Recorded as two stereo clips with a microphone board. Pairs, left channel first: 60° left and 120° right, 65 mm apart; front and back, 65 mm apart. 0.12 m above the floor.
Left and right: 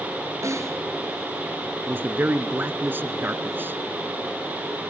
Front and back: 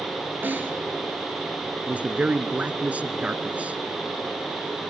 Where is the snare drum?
130° right, 2 m.